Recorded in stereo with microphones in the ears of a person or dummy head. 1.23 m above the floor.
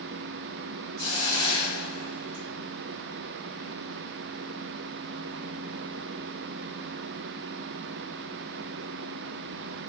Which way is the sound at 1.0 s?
85° right.